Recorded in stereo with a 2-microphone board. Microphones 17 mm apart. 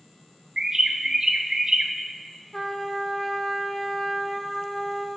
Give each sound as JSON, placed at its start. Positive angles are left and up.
{"t": 0.6, "sound": "a bird", "side_deg": -40, "distance_m": 0.5}
{"t": 2.5, "sound": "a trumpet", "side_deg": 15, "distance_m": 0.8}